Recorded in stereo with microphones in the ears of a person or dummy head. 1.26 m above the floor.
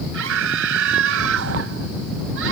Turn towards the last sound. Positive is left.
turn(degrees=-70)  # may be behind; listen again after turning